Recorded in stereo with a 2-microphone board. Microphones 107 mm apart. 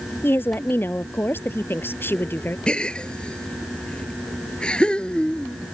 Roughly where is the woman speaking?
Centre.